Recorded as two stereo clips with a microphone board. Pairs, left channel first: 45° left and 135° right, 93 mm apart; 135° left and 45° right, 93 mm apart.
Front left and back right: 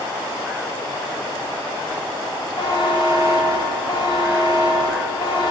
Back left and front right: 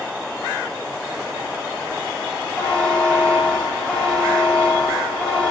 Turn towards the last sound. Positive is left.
turn(degrees=60)